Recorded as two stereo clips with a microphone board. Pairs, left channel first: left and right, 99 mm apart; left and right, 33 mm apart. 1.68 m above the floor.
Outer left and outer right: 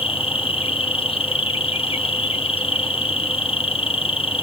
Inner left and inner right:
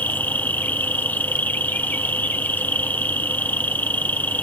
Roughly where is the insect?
Left.